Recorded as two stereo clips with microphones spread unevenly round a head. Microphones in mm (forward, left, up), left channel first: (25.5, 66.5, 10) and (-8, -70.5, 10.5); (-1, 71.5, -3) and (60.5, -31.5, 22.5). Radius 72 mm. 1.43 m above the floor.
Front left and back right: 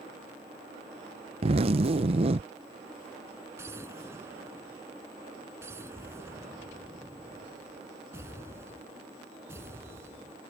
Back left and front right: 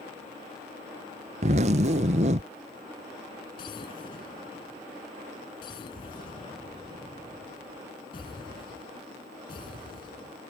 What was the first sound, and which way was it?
A zipper, 60° right.